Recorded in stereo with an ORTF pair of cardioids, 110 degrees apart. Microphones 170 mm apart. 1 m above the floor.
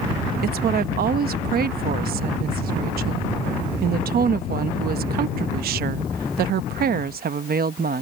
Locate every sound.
0.4 s a woman speaking: 65° right